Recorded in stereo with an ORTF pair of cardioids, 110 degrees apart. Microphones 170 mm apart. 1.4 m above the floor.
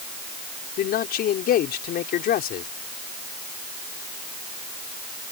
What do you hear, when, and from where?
0.8 s a man speaking: 65° left